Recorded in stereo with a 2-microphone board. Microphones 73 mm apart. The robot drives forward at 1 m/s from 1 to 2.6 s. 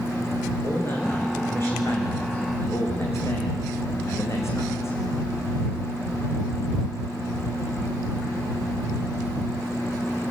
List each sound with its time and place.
0.6 s a man speaking: 30° left (ahead or behind), 8.5 m; by 5.0 s 40° left (ahead or behind), 7 m